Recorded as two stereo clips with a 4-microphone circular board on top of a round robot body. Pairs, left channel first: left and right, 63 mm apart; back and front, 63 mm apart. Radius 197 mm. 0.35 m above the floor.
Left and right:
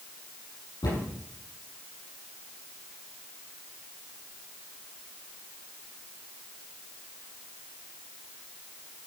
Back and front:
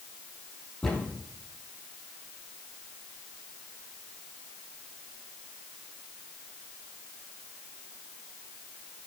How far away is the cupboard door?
About 7.5 m.